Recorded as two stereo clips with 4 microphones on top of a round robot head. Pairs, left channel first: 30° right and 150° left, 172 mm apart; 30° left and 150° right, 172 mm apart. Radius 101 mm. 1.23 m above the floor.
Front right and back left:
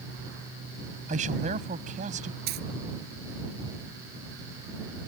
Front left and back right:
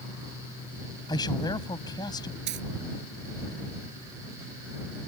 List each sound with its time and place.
1.1 s a man speaking: 100° left
2.5 s a dropped coin: 175° right